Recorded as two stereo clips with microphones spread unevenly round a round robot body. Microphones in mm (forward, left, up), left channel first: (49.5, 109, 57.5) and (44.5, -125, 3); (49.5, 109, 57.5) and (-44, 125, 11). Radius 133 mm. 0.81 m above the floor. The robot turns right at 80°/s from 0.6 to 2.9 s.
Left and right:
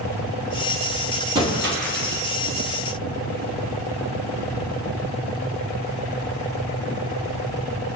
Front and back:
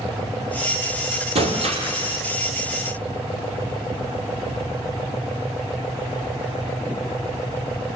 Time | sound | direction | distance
1.4 | breaking glass | 170° right | 5.5 m